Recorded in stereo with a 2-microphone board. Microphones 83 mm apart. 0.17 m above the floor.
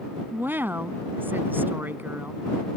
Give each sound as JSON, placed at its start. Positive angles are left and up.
{"t": 0.3, "sound": "a woman speaking", "side_deg": -25}